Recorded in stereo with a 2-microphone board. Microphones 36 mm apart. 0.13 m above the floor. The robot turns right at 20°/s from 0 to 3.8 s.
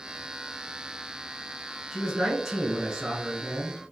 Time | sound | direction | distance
1.9 | a man speaking | centre (ahead or behind) | 1.0 m